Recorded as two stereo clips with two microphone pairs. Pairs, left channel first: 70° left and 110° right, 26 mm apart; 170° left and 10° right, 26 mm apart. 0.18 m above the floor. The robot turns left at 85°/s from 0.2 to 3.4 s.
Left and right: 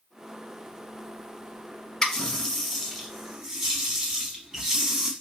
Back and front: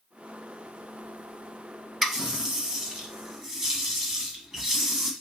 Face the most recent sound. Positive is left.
turn(degrees=-70)